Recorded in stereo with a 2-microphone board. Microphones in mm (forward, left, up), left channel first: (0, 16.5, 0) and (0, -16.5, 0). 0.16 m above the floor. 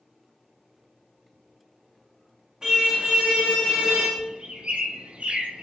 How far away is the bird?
About 1.2 m.